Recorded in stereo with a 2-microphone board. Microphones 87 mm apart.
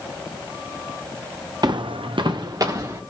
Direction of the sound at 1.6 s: 50° right (ahead or behind).